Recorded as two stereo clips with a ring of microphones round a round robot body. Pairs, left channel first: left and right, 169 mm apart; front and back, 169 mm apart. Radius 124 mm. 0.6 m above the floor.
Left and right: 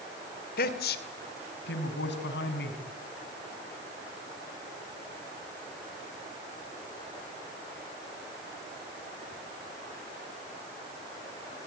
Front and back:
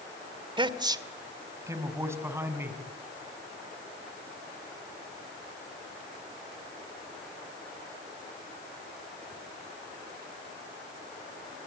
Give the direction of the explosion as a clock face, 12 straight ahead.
No explosion in this recording.